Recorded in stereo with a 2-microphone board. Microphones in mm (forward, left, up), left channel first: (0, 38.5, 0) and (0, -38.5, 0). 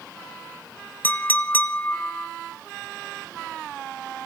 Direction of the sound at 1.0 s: 25° left (ahead or behind).